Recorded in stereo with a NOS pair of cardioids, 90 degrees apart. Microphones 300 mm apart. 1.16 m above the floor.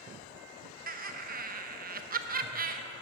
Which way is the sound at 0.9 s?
30° right.